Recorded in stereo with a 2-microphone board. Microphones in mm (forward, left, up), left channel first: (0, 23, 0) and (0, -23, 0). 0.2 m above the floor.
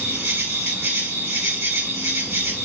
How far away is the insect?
About 2.5 m.